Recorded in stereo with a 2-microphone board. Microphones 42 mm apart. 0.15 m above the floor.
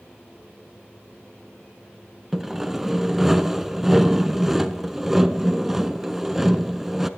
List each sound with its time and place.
2.3 s sawing: 5° right (ahead or behind), 0.5 m